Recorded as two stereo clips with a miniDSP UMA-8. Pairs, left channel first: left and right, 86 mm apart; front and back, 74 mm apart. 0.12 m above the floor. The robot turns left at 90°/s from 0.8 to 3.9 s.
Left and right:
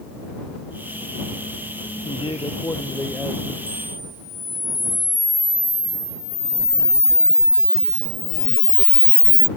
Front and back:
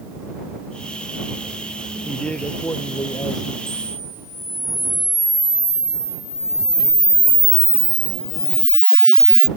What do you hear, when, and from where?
2.0 s a man speaking: 95° left; by 3.6 s 40° right
3.7 s a camera shutter: 45° left; by 9.5 s 25° left